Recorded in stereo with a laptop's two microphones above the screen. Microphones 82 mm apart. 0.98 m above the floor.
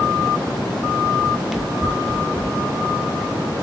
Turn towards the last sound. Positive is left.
turn(degrees=5)  # may be behind; listen again after turning